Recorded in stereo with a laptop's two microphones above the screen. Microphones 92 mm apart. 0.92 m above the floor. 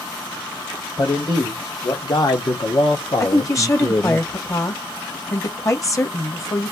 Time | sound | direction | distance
1.0 | a man speaking | 40° left (ahead or behind) | 1.9 m
3.2 | a woman speaking | 35° left (ahead or behind) | 1.3 m